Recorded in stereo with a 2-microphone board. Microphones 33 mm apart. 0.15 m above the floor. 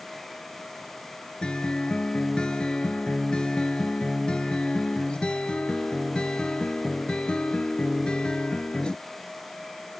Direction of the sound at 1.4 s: 30° left (ahead or behind).